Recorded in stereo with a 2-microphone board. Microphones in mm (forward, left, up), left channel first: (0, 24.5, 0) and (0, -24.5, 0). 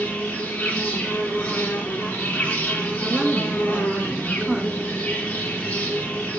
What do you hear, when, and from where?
0.0 s an insect: 25° left (ahead or behind), 4 m
3.0 s a woman speaking: 15° right (ahead or behind), 2 m